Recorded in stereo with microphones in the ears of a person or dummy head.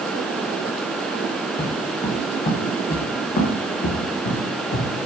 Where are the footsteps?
20° left (ahead or behind), 3.5 m; by 4.9 s 55° left (ahead or behind), 4.5 m.